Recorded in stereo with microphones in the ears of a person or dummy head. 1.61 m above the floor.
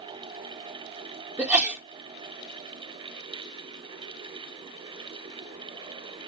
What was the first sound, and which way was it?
A sneeze, 10° right (ahead or behind).